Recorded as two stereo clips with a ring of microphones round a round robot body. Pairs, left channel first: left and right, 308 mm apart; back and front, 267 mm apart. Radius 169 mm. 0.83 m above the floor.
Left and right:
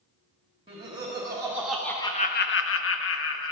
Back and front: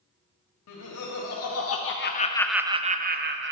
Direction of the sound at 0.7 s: 160° right.